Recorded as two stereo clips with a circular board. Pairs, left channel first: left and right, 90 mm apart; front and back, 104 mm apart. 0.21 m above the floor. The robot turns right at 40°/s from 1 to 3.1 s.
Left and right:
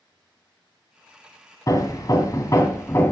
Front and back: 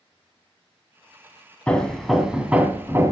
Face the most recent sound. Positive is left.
turn(degrees=135)